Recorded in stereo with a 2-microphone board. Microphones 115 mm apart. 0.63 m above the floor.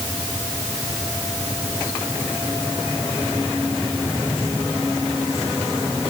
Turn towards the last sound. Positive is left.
No sound to turn to.